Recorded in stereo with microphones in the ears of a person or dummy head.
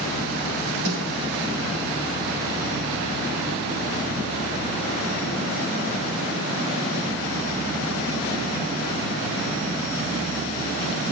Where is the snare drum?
60° right (ahead or behind), 4.5 m.